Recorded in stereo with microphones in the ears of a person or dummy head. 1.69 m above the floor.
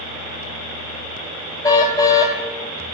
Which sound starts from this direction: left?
A car horn, at 1.6 s.